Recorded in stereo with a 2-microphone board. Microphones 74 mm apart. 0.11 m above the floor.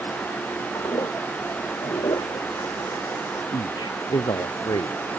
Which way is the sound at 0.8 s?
70° left (ahead or behind).